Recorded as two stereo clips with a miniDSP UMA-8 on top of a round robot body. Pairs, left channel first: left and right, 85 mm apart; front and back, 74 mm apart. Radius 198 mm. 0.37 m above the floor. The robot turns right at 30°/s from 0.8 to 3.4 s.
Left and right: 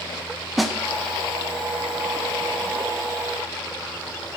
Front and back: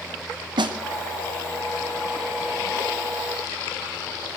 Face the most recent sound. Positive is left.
turn(degrees=-105)